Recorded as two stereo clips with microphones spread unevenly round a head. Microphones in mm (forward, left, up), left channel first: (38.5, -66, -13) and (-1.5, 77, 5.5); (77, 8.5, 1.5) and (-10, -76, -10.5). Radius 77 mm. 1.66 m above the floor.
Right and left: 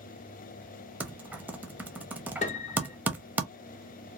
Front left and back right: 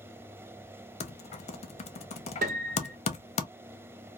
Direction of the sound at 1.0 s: 30° left.